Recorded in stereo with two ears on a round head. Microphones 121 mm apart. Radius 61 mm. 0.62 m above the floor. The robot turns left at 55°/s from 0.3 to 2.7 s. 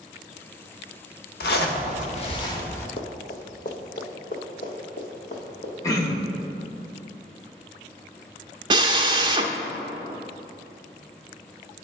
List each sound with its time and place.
1.4 s a zipper: 90° left, 0.8 m; by 2.9 s 20° left, 0.8 m
3.0 s running footsteps: 45° left (ahead or behind), 1.3 m; by 5.7 s 60° left (ahead or behind), 3 m
5.8 s throat clearing: 25° left (ahead or behind), 0.9 m
8.7 s a drill: 35° right (ahead or behind), 0.6 m